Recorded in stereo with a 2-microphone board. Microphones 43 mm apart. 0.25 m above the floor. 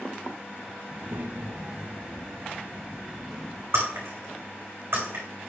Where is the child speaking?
45° right (ahead or behind), 0.7 m; by 3.6 s 15° right (ahead or behind), 1.4 m.